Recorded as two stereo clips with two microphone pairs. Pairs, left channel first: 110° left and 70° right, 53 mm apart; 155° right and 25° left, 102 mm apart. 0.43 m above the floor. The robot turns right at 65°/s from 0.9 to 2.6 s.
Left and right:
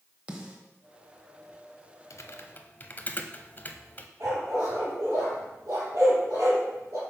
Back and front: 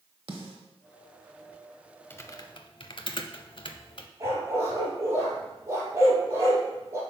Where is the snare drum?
Straight ahead, 1.1 m.